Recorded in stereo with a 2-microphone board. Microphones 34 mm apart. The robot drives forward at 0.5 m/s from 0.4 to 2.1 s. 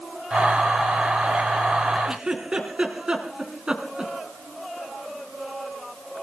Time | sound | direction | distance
2.0 | a giggle | 30° right (ahead or behind) | 3.5 m